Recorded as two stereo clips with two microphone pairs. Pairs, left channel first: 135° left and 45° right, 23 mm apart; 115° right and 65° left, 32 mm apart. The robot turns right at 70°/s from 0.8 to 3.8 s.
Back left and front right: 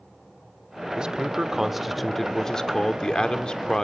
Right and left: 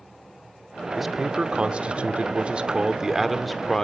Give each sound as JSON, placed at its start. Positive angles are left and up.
{"t": 1.0, "sound": "a man speaking", "azimuth_deg": -25, "distance_m": 1.0}